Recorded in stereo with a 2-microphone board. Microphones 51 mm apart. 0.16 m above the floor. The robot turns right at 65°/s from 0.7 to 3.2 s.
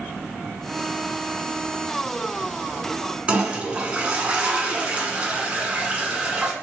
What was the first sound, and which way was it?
A toilet flushing, 20° right (ahead or behind).